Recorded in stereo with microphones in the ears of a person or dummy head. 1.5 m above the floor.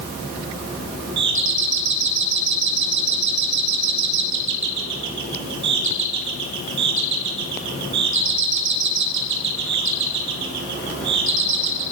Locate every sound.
1.2 s a doorbell: 60° right (ahead or behind), 2.5 m